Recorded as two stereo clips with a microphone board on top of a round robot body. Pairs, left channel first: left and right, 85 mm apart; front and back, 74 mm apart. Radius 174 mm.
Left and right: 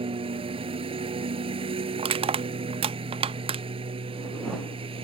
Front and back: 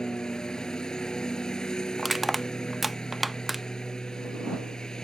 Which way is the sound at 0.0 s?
80° right.